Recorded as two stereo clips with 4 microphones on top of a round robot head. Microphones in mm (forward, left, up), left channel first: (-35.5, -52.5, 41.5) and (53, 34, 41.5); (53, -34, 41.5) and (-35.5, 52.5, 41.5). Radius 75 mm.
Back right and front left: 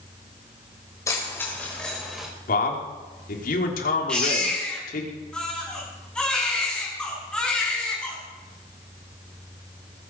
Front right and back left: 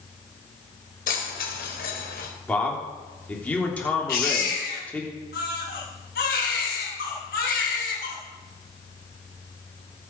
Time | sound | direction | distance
1.1 | keys jangling | 70° right | 4 m
2.5 | a man speaking | 125° right | 3.5 m
4.1 | a baby crying | 55° right | 5 m